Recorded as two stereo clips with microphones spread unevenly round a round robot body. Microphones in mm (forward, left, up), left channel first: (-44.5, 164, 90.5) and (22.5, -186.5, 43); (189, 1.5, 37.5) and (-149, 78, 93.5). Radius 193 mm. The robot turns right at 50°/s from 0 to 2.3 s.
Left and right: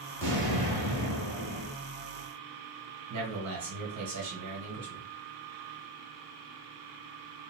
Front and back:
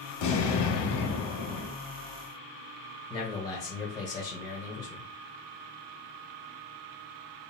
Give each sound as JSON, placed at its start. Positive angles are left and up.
{"t": 0.2, "sound": "an explosion", "azimuth_deg": -20, "distance_m": 1.8}
{"t": 3.1, "sound": "a man speaking", "azimuth_deg": -80, "distance_m": 1.8}